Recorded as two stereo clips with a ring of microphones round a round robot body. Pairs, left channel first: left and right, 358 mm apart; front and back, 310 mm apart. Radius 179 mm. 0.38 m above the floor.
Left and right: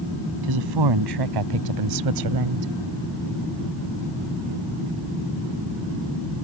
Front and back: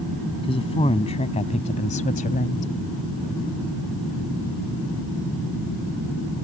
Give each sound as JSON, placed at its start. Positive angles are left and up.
{"t": 0.4, "sound": "a woman speaking", "azimuth_deg": -75}